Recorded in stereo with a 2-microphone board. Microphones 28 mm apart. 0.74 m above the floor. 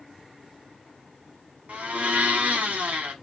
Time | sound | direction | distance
1.7 | a blender | 60° right (ahead or behind) | 1.6 m